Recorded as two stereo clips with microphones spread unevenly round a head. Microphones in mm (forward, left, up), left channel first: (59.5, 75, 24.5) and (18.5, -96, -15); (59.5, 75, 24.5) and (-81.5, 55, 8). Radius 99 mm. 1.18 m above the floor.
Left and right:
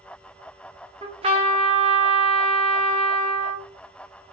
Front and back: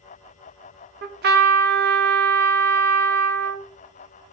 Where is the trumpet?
170° right, 1.1 m.